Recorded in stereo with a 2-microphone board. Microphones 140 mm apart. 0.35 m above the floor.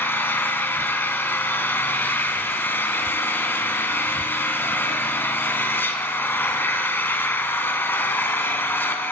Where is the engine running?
15° left (ahead or behind), 1.1 m.